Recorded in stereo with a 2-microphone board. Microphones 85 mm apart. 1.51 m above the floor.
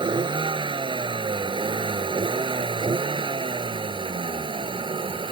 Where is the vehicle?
65° right (ahead or behind); by 5.3 s 75° right (ahead or behind).